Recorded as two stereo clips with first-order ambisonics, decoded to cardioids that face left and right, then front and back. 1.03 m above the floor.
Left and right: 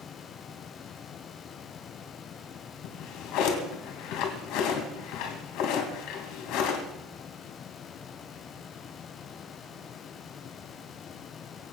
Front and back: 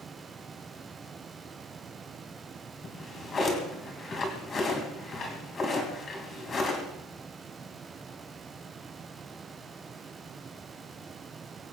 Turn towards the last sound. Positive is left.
turn(degrees=65)